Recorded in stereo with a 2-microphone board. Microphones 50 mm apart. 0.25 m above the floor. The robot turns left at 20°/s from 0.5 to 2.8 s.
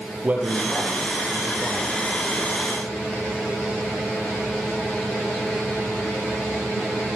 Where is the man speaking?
35° right (ahead or behind), 7.5 m; by 1.9 s 5° right (ahead or behind), 7.5 m.